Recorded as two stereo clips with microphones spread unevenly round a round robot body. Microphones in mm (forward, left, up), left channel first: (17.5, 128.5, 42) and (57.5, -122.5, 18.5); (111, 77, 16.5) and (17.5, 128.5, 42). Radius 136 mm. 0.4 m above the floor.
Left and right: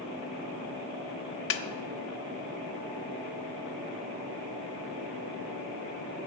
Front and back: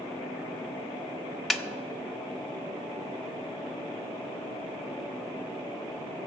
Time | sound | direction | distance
1.5 | a snare drum | 55° left | 1.0 m